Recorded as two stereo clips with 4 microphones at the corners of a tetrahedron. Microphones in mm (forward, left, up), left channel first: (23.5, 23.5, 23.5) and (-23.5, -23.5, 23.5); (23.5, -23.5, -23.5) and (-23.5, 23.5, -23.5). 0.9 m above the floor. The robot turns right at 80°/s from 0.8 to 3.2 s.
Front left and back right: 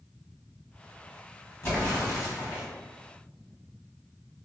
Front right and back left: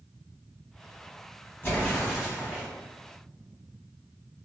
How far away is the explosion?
About 1.4 m.